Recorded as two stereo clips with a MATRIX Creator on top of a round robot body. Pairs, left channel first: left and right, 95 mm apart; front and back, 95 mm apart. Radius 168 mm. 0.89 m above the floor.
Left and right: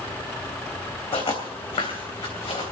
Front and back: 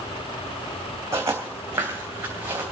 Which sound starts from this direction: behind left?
Footsteps, at 1.1 s.